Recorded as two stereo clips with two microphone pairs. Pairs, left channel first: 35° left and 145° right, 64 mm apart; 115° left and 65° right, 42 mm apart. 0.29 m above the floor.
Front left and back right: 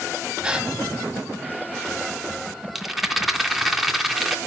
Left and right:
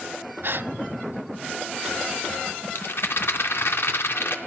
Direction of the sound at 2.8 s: 130° left.